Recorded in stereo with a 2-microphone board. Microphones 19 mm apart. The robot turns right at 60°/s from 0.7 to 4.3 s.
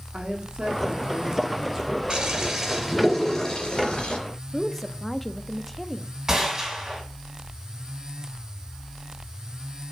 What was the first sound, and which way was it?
A woman speaking, 80° right.